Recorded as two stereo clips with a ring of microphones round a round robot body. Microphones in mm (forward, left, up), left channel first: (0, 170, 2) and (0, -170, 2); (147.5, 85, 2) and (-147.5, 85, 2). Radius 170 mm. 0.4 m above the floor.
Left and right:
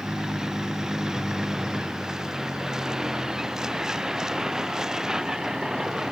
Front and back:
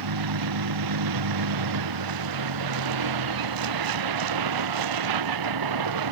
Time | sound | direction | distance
0.0 | a vehicle | straight behind | ?